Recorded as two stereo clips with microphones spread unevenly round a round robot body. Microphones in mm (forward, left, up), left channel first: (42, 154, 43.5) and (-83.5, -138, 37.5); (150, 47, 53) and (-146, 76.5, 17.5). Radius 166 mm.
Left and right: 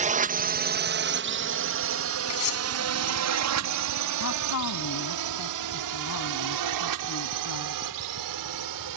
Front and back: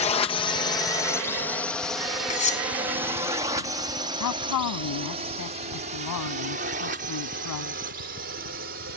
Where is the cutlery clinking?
60° left.